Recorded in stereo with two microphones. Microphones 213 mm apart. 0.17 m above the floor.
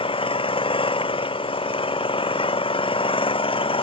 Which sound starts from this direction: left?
An engine running, at 0.0 s.